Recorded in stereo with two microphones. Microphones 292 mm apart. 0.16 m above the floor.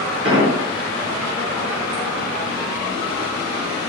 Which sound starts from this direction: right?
An explosion, at 0.2 s.